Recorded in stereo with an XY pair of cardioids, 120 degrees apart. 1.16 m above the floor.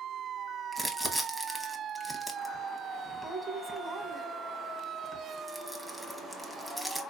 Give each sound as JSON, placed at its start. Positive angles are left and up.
{"t": 0.7, "sound": "crumpling", "azimuth_deg": -5, "distance_m": 0.8}